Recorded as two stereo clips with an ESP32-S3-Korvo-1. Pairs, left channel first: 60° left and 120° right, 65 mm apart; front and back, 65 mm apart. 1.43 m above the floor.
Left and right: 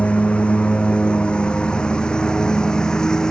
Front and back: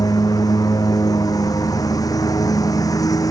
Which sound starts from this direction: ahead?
A lawn mower, at 0.0 s.